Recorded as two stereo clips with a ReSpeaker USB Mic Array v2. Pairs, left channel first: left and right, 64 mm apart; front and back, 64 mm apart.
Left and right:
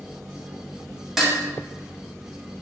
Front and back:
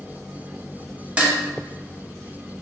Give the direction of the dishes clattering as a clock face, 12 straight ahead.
5 o'clock.